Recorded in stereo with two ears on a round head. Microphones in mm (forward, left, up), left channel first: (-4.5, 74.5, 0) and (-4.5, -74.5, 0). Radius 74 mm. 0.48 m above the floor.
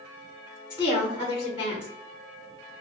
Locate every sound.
0.7 s a woman speaking: 15° right (ahead or behind), 1.1 m